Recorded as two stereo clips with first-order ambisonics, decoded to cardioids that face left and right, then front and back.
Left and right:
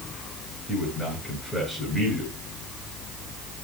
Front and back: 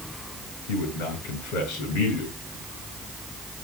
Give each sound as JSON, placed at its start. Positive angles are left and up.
{"t": 0.7, "sound": "a man speaking", "azimuth_deg": 0, "distance_m": 8.0}